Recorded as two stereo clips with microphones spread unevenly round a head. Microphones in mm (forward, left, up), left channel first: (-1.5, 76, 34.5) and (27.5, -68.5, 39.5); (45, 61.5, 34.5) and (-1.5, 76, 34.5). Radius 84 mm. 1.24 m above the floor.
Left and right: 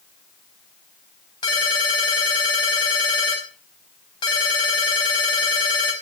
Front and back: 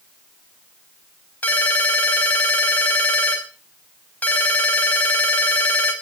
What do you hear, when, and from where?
1.4 s a ringtone: 40° left, 5 m